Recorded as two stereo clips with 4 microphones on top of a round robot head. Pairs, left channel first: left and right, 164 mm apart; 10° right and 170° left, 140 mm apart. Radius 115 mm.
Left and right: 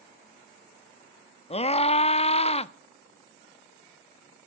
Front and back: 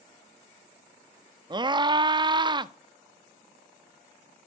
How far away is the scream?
About 1.1 m.